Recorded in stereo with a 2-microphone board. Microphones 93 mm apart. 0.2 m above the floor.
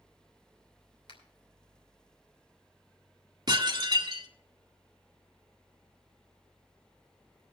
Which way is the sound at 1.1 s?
70° left (ahead or behind).